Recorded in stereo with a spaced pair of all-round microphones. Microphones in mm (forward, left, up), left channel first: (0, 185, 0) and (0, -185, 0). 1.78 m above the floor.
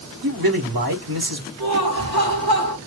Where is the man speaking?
75° right (ahead or behind), 1.6 m.